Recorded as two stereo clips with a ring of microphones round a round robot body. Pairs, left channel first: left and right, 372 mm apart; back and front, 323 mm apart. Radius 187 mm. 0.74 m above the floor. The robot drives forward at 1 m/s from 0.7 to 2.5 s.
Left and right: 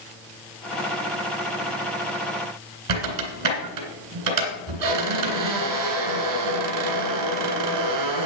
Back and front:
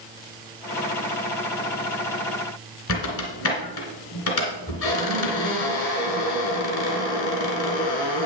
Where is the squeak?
130° right, 2.5 m.